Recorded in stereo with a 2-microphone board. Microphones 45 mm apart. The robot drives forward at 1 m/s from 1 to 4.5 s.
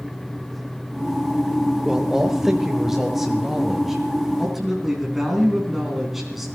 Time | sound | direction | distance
1.9 | a man speaking | 15° right (ahead or behind) | 1.0 m